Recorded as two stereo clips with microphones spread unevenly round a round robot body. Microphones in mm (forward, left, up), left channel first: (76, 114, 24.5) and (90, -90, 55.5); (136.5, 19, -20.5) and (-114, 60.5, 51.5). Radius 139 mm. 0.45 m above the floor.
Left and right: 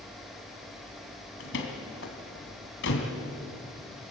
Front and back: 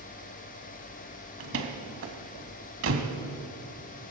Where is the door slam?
130° left, 2.5 m.